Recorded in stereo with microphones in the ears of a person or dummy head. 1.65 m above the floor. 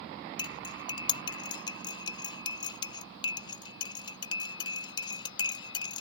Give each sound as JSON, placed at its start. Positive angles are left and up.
{"t": 0.4, "sound": "cutlery clinking", "side_deg": 25}